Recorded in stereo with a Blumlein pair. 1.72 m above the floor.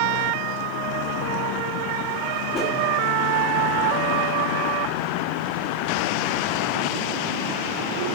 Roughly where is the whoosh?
Ahead left.